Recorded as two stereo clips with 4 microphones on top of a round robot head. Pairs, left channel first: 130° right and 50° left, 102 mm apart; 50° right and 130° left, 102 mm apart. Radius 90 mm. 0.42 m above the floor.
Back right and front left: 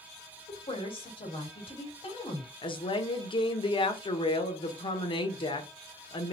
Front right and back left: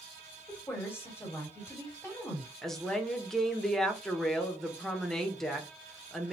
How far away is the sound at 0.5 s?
About 1.9 m.